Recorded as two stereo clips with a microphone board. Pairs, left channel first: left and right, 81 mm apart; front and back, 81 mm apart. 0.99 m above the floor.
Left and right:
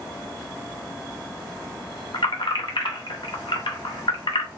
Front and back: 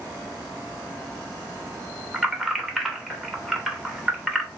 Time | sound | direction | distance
2.1 | keys jangling | 95° left | 0.7 m